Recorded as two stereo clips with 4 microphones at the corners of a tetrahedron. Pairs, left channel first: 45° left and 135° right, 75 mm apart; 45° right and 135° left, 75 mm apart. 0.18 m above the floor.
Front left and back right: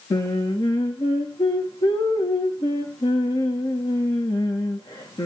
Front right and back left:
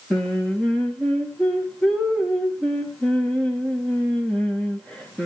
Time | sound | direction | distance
0.1 | singing | 35° left | 3.5 m